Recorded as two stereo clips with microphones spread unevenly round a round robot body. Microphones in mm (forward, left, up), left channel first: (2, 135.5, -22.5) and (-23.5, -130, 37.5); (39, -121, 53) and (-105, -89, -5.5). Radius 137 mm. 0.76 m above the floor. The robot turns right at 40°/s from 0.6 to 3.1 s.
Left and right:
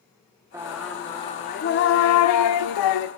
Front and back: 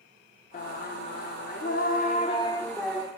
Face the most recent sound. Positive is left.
turn(degrees=80)